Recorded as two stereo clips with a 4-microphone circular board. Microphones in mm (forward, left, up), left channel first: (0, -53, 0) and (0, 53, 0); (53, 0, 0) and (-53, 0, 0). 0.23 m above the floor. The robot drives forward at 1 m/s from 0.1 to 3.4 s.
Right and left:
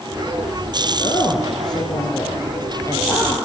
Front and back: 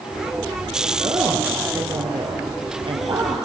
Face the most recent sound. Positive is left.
turn(degrees=-155)